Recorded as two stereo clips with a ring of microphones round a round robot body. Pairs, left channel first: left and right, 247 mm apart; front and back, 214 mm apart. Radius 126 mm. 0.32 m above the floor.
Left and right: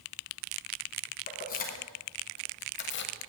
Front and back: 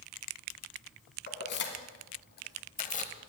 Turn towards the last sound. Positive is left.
turn(degrees=55)